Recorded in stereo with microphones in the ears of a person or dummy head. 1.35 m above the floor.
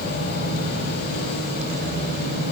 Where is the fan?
55° left (ahead or behind), 2.5 m.